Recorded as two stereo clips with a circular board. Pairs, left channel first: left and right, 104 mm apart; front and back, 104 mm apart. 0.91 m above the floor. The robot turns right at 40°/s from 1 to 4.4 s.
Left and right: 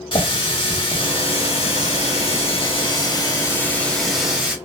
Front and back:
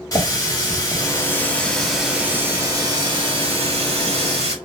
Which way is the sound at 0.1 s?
55° left.